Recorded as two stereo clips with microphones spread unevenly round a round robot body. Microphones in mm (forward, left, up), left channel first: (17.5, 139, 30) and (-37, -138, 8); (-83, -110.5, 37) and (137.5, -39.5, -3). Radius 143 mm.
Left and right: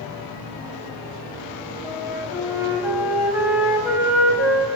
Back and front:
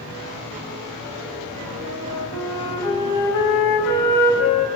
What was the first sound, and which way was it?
A flute, 175° left.